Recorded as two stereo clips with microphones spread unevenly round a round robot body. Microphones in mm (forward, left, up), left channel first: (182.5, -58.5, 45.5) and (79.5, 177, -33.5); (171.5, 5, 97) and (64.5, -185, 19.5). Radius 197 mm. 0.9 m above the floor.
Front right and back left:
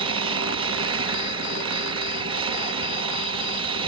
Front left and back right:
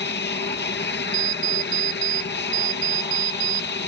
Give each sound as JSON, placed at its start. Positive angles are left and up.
{"t": 0.0, "sound": "an aircraft", "azimuth_deg": 100}
{"t": 1.1, "sound": "an alarm clock", "azimuth_deg": -160}